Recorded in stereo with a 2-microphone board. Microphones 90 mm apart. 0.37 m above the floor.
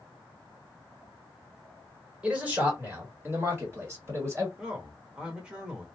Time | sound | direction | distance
2.2 | a man speaking | 15° right (ahead or behind) | 1.4 m
4.6 | a man speaking | 10° right (ahead or behind) | 0.9 m